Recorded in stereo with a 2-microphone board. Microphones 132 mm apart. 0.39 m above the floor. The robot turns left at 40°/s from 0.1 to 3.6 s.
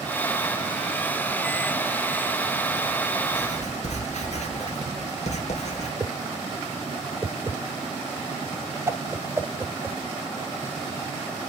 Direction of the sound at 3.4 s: 70° left (ahead or behind).